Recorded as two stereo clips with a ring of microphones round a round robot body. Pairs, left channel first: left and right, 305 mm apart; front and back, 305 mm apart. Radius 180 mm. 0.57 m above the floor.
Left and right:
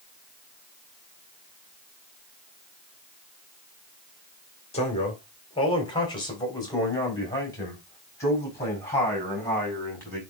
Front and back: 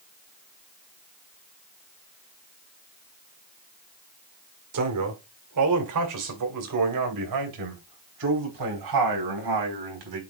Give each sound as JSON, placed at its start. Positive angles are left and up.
{"t": 4.7, "sound": "a man speaking", "azimuth_deg": 160, "distance_m": 1.9}